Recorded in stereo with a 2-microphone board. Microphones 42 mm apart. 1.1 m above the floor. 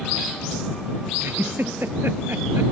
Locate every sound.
1.2 s a giggle: 65° right (ahead or behind)